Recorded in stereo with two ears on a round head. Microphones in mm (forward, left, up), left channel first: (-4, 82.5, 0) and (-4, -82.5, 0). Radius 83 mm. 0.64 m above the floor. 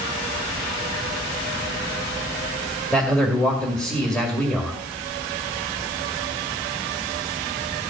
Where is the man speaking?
5° left (ahead or behind), 2.5 m.